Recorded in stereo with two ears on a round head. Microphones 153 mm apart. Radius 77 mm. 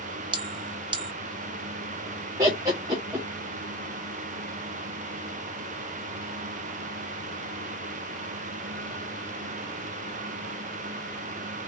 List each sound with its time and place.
0.3 s a bell: 25° right (ahead or behind), 0.6 m
2.4 s laughter: 20° right (ahead or behind), 1.2 m